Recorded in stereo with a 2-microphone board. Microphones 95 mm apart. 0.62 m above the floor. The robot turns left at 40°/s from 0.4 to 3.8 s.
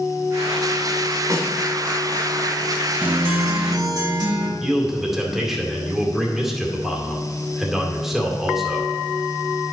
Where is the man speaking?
5° right (ahead or behind), 2 m.